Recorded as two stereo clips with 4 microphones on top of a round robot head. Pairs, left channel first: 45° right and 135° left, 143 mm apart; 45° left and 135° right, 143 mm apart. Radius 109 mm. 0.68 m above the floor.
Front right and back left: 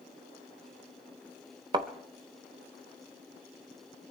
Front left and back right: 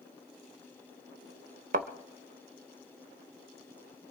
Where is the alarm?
I don't hear an alarm.